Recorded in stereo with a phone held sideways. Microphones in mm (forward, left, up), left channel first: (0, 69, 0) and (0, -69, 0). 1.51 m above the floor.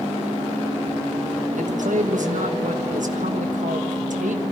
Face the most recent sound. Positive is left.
turn(degrees=-75)  # may be behind; listen again after turning